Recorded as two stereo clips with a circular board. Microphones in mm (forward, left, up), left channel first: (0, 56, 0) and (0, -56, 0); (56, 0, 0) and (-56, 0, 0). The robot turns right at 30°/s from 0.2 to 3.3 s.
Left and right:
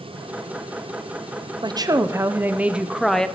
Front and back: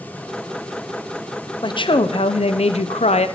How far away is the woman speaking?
About 0.5 m.